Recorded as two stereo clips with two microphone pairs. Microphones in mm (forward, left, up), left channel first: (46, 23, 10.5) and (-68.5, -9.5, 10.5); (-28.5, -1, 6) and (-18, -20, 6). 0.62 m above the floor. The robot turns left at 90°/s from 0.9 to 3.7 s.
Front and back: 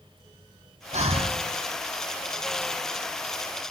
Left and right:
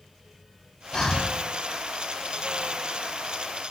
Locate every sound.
0.9 s breathing: straight behind, 0.6 m; by 1.4 s 135° left, 0.6 m